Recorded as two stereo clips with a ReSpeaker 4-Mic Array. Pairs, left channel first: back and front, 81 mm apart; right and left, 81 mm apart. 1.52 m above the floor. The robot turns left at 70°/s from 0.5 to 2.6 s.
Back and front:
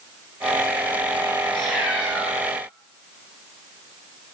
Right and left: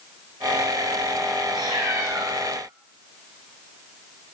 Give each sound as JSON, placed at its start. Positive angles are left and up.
{"t": 1.5, "sound": "a cat meowing", "azimuth_deg": 100, "distance_m": 5.5}